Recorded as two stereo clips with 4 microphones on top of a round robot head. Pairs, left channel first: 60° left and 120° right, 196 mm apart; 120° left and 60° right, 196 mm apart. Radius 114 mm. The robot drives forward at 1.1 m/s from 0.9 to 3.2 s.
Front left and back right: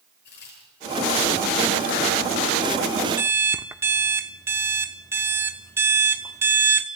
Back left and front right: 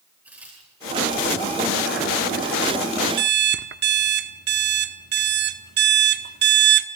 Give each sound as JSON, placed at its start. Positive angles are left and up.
{"t": 0.2, "sound": "a crack", "azimuth_deg": 25, "distance_m": 9.5}
{"t": 3.2, "sound": "an alarm clock", "azimuth_deg": -45, "distance_m": 1.0}